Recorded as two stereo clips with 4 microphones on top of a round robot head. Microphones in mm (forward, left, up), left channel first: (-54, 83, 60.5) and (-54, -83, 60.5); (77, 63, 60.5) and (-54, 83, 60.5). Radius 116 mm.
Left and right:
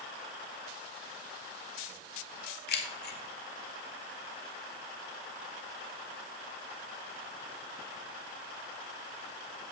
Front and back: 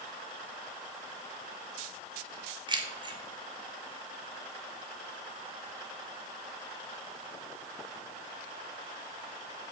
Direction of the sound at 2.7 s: 115° left.